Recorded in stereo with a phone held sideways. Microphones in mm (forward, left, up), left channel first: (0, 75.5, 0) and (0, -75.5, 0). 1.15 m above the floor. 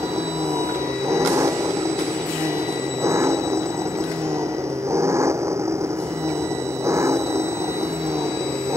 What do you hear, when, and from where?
0.0 s an engine running: 20° right (ahead or behind)